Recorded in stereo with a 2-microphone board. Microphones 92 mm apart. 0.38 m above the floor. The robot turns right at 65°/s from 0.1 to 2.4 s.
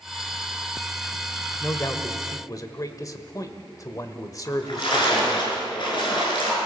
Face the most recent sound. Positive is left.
turn(degrees=60)  # may be behind; listen again after turning